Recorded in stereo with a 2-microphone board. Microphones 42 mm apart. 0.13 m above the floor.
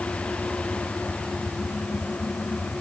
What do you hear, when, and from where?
Only background noise.